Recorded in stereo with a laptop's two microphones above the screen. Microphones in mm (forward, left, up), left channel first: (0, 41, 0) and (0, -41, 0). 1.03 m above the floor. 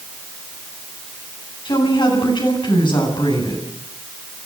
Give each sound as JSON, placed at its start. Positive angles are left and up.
{"t": 1.6, "sound": "a woman speaking", "side_deg": 85, "distance_m": 9.0}